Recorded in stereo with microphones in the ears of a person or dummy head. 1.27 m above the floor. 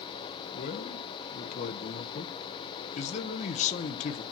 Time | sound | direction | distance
0.5 | a man speaking | 40° left (ahead or behind) | 0.9 m